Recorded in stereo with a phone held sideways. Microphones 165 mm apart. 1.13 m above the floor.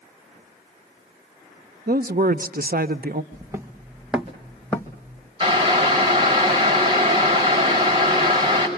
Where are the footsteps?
25° right (ahead or behind), 2 m; by 5.3 s 25° left (ahead or behind), 1.9 m.